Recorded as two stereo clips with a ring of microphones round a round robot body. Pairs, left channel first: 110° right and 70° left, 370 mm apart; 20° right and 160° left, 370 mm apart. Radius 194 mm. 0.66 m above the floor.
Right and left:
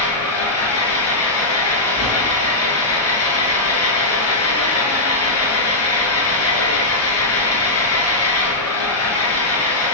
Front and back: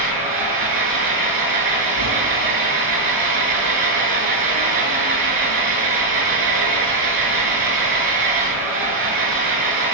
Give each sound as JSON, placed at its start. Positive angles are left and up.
{"t": 0.0, "sound": "an engine running", "azimuth_deg": -165, "distance_m": 7.0}